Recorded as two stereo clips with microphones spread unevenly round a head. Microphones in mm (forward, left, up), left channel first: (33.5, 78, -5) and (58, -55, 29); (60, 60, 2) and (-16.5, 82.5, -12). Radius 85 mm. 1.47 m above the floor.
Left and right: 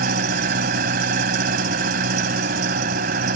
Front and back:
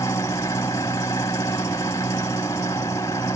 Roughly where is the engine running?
Right.